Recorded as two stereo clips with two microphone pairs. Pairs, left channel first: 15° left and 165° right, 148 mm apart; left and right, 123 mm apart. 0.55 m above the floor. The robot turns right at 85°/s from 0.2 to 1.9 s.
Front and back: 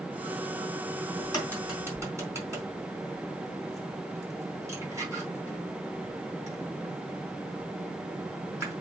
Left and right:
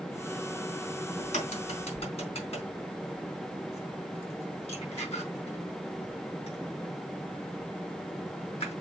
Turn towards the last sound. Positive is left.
turn(degrees=125)